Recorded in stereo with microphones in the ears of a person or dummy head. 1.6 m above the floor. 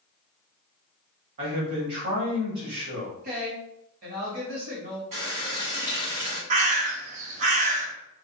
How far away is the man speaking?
About 1.2 m.